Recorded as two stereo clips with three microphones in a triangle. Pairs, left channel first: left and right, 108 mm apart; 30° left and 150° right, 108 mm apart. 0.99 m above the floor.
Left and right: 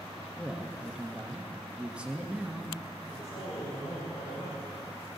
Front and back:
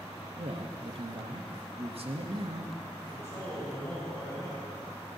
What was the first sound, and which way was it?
A man speaking, 170° right.